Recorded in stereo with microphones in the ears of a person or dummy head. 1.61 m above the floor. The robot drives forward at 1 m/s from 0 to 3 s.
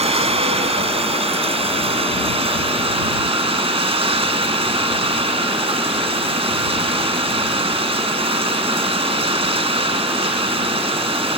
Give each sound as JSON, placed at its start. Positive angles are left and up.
{"t": 0.0, "sound": "running water", "side_deg": -35}